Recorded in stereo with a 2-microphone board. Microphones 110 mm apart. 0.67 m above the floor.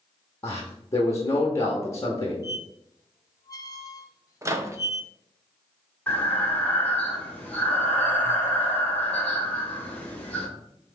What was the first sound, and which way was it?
A man speaking, 25° left (ahead or behind).